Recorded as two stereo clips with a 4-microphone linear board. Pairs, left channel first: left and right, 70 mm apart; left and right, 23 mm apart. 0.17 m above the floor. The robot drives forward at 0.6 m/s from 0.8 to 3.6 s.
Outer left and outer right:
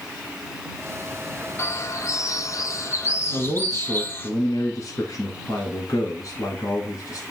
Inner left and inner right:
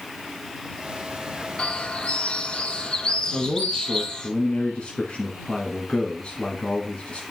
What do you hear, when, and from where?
1.6 s a bird: 40° left (ahead or behind), 0.8 m; by 4.3 s 30° left (ahead or behind), 1.0 m
3.3 s a man speaking: 50° left (ahead or behind), 1.5 m